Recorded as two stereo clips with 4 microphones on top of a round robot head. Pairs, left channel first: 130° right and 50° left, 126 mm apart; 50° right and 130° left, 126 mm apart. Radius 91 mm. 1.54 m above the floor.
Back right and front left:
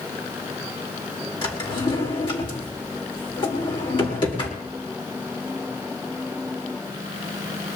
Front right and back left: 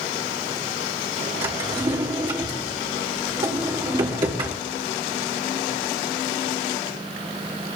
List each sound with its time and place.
1.4 s a drawer: straight behind, 1.9 m